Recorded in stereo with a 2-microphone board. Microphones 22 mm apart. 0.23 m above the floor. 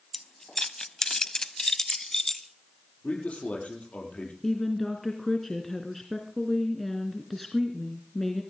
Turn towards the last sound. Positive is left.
turn(degrees=10)  # may be behind; listen again after turning